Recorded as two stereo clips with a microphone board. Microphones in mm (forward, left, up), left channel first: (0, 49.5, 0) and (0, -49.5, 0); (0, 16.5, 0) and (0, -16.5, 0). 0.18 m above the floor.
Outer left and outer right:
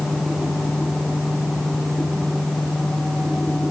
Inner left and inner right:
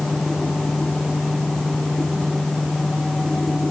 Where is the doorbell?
I don't hear a doorbell.